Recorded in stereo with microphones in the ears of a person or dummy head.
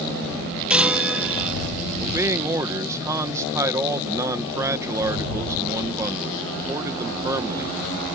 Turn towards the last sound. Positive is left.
turn(degrees=-15)  # may be behind; listen again after turning